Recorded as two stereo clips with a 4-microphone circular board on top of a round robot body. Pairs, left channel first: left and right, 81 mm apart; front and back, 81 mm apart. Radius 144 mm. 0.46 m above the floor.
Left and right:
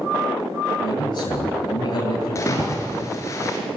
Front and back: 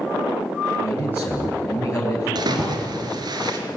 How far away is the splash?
About 3 m.